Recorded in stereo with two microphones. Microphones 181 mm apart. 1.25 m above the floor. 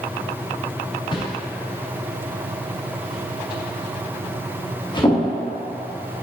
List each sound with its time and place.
1.1 s a whoosh: 25° left (ahead or behind), 0.9 m